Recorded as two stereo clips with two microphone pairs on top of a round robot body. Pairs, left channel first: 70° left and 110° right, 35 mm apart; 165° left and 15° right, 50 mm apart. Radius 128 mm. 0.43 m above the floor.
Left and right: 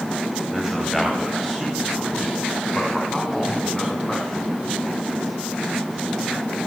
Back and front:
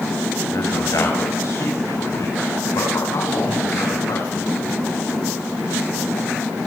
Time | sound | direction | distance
0.5 | a man speaking | 170° left | 4.5 m